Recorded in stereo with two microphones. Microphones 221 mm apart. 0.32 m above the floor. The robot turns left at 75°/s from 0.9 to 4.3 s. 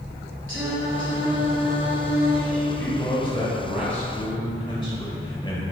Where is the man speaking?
10° left (ahead or behind), 1.5 m; by 5.6 s 20° left (ahead or behind), 1.5 m.